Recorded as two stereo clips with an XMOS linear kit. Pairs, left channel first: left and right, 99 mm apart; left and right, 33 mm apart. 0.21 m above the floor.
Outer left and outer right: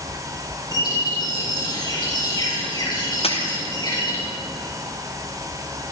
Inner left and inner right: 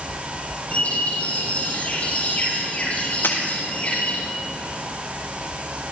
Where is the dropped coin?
85° left, 3.5 m.